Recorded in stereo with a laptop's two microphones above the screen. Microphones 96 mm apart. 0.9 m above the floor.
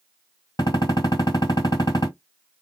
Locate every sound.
0.6 s a gunshot: 45° left (ahead or behind), 1.8 m